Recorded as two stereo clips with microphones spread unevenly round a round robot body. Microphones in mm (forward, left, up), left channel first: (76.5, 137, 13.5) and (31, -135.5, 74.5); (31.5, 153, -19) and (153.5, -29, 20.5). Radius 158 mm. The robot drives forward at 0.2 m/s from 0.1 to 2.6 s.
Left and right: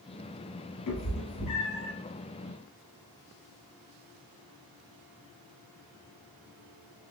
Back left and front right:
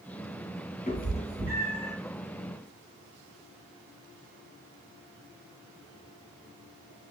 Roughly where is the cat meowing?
Left.